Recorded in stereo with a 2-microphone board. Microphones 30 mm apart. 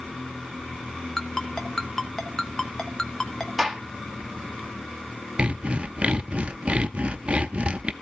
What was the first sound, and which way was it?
A ringtone, 20° left (ahead or behind).